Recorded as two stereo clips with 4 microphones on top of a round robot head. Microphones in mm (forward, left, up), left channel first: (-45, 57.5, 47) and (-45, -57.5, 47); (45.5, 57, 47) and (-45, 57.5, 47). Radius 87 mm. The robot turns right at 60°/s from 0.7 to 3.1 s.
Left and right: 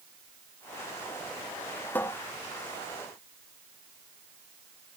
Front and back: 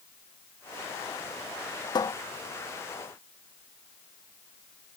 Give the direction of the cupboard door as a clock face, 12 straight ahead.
11 o'clock.